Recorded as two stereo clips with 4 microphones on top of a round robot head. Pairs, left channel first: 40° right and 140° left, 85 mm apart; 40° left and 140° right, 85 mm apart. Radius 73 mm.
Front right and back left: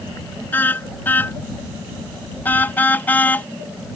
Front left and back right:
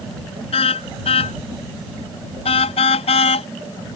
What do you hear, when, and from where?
0.5 s a car horn: 30° left